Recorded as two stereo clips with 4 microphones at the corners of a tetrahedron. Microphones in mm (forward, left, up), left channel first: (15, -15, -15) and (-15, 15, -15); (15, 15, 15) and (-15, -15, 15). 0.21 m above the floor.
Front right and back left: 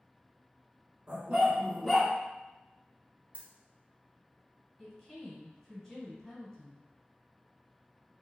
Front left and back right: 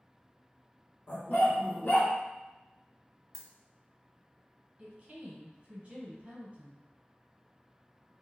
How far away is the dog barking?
About 0.9 m.